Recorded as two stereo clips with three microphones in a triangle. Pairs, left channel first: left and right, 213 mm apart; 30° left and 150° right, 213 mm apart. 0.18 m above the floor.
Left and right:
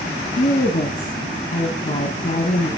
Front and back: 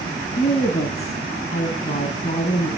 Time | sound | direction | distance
0.4 | a woman speaking | 70° left | 1.9 m